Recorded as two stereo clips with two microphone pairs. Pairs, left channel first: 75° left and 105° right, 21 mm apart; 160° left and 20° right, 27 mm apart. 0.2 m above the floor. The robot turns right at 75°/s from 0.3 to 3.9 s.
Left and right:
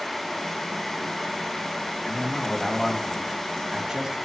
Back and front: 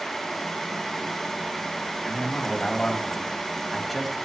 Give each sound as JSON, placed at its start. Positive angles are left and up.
{"t": 2.0, "sound": "a man speaking", "azimuth_deg": 110, "distance_m": 1.7}